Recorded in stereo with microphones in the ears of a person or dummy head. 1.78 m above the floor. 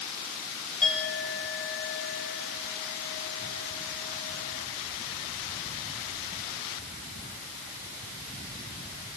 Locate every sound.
0.8 s a clink: 10° left (ahead or behind), 6.5 m